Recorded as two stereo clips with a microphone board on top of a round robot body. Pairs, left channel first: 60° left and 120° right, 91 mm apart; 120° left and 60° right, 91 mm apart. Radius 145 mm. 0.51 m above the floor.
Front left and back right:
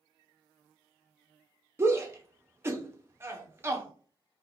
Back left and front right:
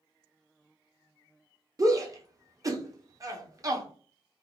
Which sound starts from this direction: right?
A shout, at 1.8 s.